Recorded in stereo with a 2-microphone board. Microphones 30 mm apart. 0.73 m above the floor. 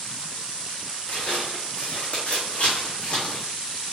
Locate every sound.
1.1 s footsteps: 70° left (ahead or behind), 2 m; by 3.5 s 35° left (ahead or behind), 1.9 m